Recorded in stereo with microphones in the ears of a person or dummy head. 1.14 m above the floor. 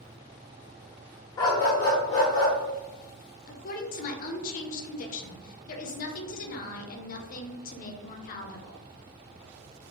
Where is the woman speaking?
50° left (ahead or behind), 0.6 m.